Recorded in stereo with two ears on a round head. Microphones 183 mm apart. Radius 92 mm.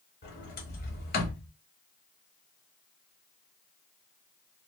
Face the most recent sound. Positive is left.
turn(degrees=45)  # may be behind; listen again after turning